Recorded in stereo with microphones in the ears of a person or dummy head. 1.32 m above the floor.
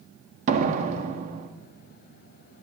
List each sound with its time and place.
0.5 s a door slam: 45° right (ahead or behind), 1.5 m